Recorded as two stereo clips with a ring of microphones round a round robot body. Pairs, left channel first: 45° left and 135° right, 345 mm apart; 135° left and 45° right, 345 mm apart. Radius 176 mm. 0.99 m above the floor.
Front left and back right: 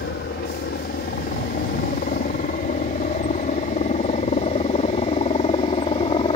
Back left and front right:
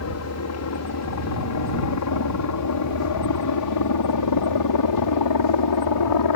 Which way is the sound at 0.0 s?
100° left.